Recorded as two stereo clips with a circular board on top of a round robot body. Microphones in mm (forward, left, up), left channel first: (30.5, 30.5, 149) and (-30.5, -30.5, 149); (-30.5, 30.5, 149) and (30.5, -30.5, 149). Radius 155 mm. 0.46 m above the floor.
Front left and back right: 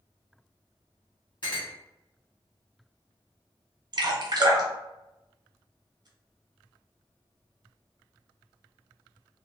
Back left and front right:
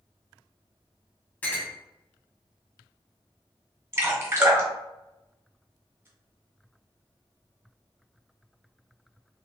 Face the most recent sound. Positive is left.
turn(degrees=-100)